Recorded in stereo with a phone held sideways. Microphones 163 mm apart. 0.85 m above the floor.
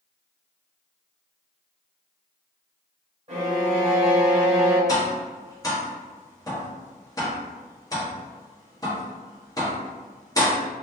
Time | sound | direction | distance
3.3 | a violin | 45° right (ahead or behind) | 1.1 m
4.9 | tapping | 20° left (ahead or behind) | 0.8 m